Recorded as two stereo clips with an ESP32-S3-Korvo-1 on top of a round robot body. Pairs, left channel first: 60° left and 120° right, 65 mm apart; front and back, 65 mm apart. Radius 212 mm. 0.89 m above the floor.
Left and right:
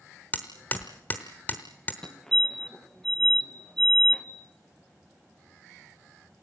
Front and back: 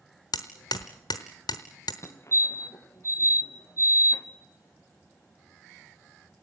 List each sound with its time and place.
0.3 s hammering: 5° right, 0.9 m
2.0 s a fire alarm: 15° right, 2.5 m